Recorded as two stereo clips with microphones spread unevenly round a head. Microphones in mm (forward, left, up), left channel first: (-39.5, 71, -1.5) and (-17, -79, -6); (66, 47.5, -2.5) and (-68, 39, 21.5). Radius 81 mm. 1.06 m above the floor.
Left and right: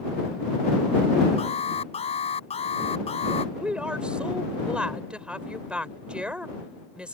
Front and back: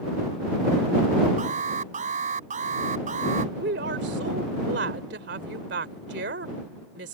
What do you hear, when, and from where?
1.4 s an alarm: 150° left
3.5 s a woman speaking: 165° right